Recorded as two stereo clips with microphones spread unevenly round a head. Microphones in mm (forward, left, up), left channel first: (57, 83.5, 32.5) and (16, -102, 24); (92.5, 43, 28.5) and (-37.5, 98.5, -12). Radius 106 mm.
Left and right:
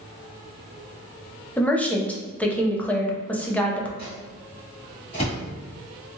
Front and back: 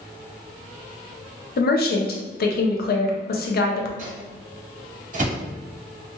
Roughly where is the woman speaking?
Ahead.